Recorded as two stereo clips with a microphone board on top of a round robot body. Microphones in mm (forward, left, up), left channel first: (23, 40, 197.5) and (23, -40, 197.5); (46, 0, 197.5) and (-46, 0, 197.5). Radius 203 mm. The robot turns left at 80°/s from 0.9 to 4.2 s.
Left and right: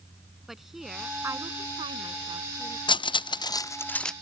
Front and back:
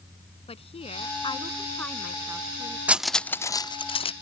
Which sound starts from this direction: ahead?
A woman speaking, at 0.5 s.